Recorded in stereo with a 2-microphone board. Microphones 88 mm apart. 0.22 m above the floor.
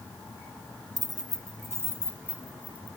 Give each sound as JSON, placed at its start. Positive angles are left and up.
{"t": 1.0, "sound": "keys jangling", "side_deg": -50, "distance_m": 1.0}